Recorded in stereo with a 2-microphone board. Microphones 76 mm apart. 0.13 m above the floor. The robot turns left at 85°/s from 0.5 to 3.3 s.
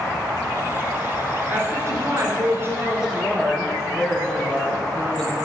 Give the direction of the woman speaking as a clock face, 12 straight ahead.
1 o'clock.